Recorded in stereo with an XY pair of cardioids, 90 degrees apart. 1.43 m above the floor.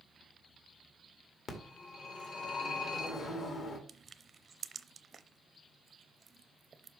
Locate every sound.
1.5 s a phone ringing: 60° left, 1.9 m
3.9 s crushing: 40° right, 0.6 m